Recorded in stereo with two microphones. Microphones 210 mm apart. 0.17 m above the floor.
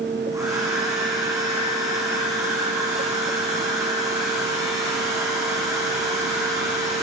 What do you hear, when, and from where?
0.3 s a hair dryer: 15° right (ahead or behind), 8 m